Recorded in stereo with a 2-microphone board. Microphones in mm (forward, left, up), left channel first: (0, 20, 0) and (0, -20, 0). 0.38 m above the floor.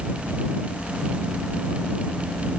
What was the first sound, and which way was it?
Only background noise.